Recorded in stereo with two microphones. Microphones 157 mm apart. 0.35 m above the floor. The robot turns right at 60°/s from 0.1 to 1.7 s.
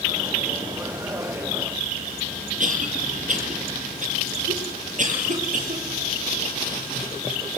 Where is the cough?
50° right (ahead or behind), 7.5 m.